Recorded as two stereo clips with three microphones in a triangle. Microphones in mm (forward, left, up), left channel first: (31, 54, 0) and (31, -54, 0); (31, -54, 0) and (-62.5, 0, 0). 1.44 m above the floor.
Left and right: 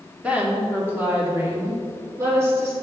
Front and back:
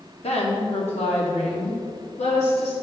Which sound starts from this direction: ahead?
A woman speaking, at 0.2 s.